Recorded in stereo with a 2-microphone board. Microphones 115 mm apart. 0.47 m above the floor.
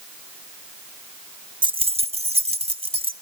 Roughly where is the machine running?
I don't hear a machine running.